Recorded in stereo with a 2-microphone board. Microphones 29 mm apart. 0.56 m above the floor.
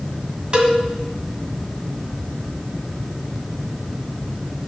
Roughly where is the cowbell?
Right.